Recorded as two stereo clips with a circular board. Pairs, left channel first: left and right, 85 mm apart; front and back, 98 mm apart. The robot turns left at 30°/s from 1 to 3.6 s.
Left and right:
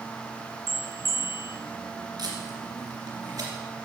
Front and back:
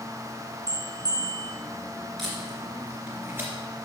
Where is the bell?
140° right, 1.3 m; by 1.5 s 155° right, 1.3 m.